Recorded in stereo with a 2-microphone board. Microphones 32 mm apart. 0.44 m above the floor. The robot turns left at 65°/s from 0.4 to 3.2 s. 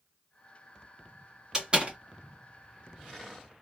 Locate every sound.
1.5 s a door slam: 15° right (ahead or behind), 1.6 m; by 2.0 s 45° right (ahead or behind), 1.6 m